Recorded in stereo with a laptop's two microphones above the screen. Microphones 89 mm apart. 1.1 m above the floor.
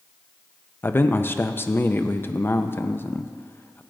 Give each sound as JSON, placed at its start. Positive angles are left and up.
{"t": 0.8, "sound": "a man speaking", "side_deg": 25, "distance_m": 0.5}